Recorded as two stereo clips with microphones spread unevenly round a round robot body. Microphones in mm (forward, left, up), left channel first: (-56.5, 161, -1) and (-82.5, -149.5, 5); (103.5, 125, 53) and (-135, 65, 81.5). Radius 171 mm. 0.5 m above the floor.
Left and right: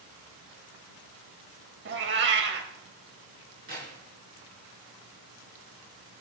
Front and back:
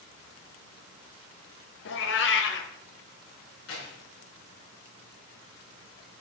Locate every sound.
1.9 s a cat meowing: 35° right, 0.8 m
3.7 s keys jangling: 30° right, 5.5 m